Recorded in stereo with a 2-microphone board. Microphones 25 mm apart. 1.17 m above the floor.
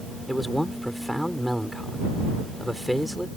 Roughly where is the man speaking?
Centre.